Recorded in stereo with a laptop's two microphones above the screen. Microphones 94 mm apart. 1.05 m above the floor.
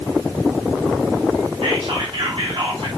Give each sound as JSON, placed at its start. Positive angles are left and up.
{"t": 1.6, "sound": "whispering", "side_deg": -80, "distance_m": 2.0}